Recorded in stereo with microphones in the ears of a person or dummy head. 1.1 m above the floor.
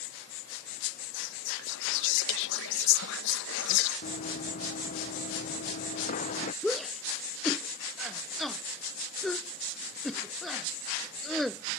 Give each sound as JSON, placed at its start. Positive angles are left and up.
{"t": 1.1, "sound": "whispering", "side_deg": 60}
{"t": 4.0, "sound": "running footsteps", "side_deg": 55}
{"t": 6.6, "sound": "a shout", "side_deg": -10}